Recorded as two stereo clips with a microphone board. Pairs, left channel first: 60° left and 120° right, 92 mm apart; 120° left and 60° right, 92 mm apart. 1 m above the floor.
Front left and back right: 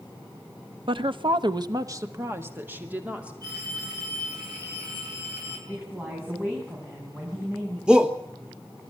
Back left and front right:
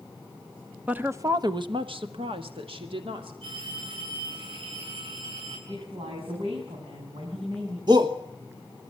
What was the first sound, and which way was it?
A woman speaking, 135° right.